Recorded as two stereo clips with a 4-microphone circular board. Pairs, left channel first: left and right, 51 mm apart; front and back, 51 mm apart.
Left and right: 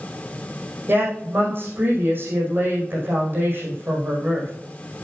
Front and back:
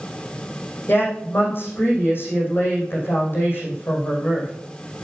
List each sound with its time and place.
0.9 s a woman speaking: 45° right, 5 m